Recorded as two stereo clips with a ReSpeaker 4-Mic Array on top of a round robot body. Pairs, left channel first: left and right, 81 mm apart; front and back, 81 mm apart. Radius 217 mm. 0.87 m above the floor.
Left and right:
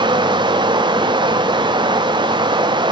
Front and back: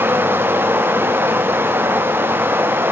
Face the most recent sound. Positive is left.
turn(degrees=-115)